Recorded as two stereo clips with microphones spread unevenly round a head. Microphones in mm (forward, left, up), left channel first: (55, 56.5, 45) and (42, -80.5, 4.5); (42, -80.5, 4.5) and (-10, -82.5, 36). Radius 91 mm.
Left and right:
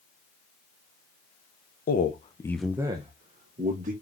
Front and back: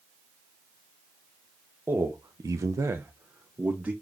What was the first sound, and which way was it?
A man speaking, 105° left.